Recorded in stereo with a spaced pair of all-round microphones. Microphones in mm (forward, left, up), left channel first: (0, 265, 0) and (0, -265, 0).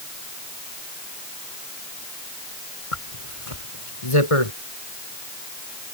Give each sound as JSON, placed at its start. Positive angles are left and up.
{"t": 2.9, "sound": "a zipper", "side_deg": 80}